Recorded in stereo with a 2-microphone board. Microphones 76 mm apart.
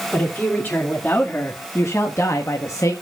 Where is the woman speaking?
20° left (ahead or behind), 2.5 m; by 2.9 s 40° left (ahead or behind), 1.1 m.